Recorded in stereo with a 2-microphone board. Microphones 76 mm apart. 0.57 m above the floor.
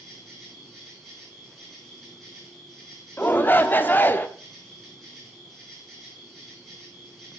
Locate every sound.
0.0 s an insect: centre (ahead or behind), 5 m
3.2 s a shout: 30° left (ahead or behind), 0.8 m